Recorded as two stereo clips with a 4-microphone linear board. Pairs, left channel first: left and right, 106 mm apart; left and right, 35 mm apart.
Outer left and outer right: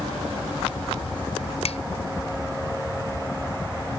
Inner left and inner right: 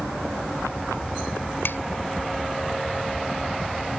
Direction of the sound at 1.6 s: 80° left.